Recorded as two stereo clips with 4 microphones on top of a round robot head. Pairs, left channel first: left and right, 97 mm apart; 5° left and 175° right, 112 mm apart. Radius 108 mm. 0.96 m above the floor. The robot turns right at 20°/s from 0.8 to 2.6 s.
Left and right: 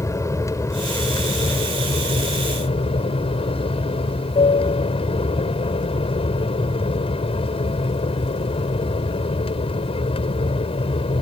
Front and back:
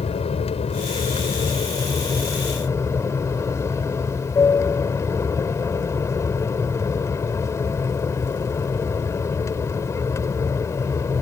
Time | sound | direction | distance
0.0 | an aircraft | 30° left | ?